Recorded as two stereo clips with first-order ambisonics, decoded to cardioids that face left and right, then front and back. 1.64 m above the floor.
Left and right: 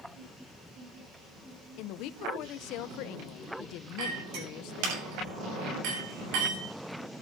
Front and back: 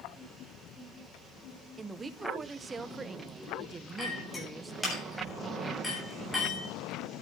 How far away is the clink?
About 8 m.